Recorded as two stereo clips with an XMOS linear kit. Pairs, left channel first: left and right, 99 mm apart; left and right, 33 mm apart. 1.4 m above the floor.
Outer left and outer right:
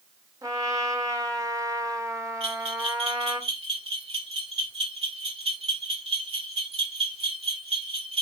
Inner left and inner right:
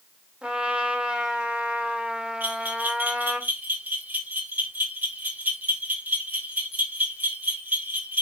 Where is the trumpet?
35° right (ahead or behind), 1.5 m.